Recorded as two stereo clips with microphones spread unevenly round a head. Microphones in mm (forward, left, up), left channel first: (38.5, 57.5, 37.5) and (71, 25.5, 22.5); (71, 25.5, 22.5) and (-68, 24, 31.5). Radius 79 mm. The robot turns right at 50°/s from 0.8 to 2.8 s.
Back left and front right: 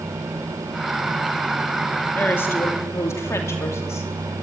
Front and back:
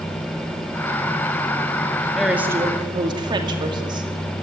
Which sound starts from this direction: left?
A woman speaking, at 2.1 s.